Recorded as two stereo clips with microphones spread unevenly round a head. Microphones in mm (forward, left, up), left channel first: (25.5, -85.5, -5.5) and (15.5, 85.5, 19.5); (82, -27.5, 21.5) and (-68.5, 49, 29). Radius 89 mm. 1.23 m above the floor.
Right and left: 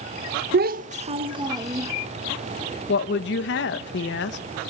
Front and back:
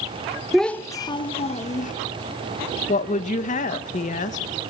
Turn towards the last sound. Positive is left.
turn(degrees=-75)